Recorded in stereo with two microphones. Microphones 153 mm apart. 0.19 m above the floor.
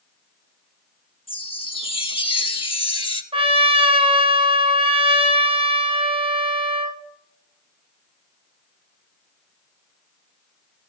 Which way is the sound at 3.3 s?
40° right (ahead or behind).